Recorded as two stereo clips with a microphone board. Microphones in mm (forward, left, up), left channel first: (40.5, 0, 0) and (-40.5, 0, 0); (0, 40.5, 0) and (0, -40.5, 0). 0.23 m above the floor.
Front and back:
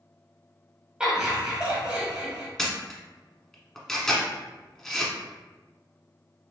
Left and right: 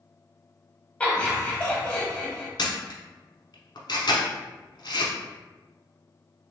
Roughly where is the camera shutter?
Left.